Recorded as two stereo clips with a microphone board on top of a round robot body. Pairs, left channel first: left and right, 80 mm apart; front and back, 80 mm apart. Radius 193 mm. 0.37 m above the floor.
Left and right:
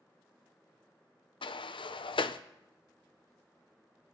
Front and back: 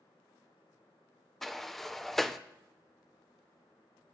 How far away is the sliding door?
About 0.5 m.